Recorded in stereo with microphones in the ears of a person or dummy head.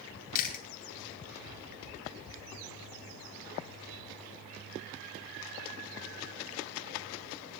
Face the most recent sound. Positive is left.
turn(degrees=45)  # may be behind; listen again after turning